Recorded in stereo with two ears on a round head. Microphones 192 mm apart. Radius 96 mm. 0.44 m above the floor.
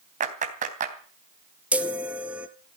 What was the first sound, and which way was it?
A clap, 35° right (ahead or behind).